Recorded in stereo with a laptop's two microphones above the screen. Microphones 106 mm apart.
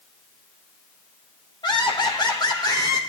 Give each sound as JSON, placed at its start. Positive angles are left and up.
{"t": 1.6, "sound": "laughter", "side_deg": 45, "distance_m": 1.2}